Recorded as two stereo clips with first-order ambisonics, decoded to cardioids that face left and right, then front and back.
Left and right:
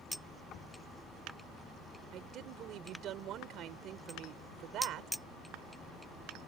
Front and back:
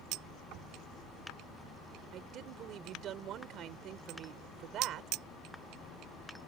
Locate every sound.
0.5 s knocking: 140° left
2.1 s a woman speaking: 135° right